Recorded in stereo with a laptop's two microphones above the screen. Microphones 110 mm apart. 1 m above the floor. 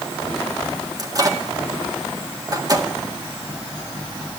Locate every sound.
1.0 s a microwave: 35° right (ahead or behind), 1.8 m